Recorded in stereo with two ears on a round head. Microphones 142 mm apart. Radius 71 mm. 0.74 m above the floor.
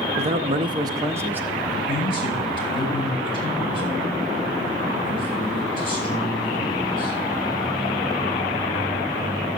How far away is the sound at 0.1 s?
About 0.8 m.